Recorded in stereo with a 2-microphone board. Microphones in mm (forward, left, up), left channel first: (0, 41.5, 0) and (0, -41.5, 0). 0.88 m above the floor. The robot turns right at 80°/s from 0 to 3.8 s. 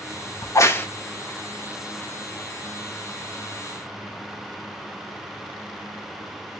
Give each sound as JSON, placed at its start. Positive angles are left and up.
{"t": 0.4, "sound": "a crack", "side_deg": 45, "distance_m": 0.9}